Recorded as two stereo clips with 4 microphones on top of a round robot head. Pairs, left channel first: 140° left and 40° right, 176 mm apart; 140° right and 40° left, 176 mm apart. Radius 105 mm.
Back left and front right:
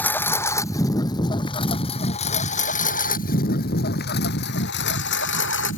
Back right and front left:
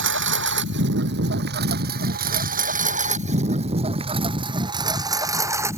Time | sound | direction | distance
0.0 | a lawn mower | 55° left | ?